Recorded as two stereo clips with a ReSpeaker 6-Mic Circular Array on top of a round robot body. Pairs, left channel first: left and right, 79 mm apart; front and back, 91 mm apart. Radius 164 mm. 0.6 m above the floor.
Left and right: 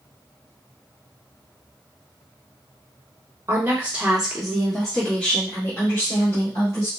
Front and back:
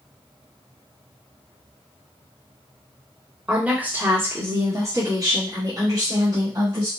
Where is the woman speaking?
105° right, 1.2 m; by 6.9 s 140° left, 2 m.